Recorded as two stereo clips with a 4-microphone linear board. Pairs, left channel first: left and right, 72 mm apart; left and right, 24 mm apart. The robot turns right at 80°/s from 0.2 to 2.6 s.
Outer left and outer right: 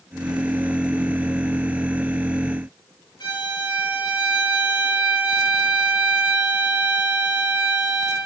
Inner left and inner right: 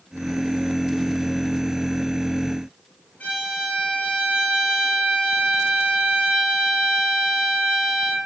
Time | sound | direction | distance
3.2 | a violin | 80° left | 0.9 m